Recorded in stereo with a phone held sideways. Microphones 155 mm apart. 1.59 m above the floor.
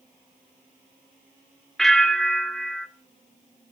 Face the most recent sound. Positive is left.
turn(degrees=5)  # may be behind; listen again after turning